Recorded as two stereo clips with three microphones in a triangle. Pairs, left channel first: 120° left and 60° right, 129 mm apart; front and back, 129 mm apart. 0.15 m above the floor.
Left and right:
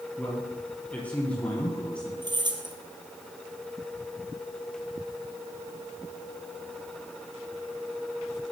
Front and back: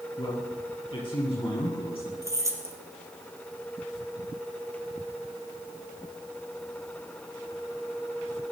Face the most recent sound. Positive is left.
turn(degrees=-115)